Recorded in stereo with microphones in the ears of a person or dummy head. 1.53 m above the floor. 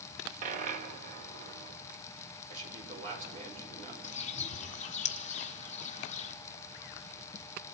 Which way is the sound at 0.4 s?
45° right (ahead or behind).